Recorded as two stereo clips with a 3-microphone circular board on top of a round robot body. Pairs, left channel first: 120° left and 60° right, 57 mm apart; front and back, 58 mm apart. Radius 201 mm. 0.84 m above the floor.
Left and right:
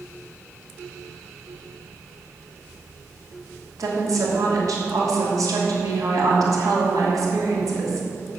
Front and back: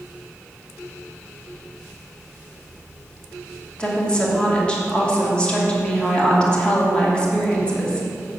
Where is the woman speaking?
75° right, 2.5 m.